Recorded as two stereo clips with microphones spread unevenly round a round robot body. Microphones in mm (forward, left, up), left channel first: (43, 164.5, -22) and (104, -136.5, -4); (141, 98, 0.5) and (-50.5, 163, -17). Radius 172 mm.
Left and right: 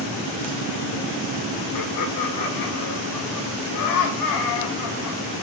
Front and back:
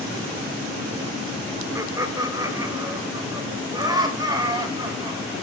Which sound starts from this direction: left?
Laughter, at 1.8 s.